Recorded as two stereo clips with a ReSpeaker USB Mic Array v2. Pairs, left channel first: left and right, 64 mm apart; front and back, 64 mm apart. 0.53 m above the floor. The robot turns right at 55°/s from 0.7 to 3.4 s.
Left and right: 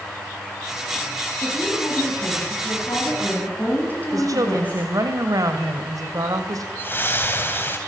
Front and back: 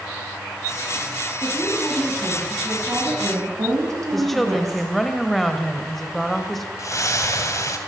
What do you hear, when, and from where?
1.4 s a woman speaking: 40° left, 6 m; by 4.9 s 150° left, 6 m
4.1 s a woman speaking: 85° right, 2.5 m
6.8 s a splash: 35° left, 2.5 m